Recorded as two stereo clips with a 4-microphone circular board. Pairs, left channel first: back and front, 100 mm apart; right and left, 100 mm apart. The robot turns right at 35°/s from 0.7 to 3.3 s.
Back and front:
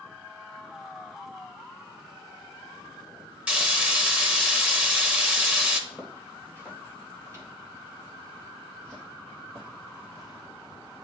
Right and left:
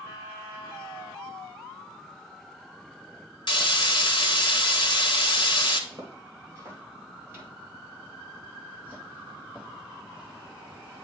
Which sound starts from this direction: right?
Frying, at 3.5 s.